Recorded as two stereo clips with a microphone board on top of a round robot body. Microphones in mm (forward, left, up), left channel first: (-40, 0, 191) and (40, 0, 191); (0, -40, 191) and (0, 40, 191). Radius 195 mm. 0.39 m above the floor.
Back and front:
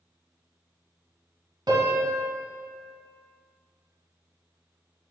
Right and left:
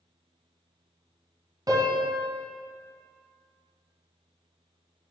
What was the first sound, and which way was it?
A piano, 40° left.